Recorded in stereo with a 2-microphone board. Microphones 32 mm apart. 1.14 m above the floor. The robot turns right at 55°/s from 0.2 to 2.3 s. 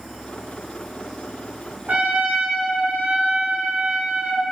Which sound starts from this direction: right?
A trumpet, at 1.9 s.